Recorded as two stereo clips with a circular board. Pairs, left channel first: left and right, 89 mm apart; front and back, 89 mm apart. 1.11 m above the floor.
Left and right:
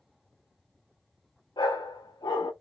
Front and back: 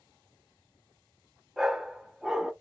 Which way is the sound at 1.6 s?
95° left.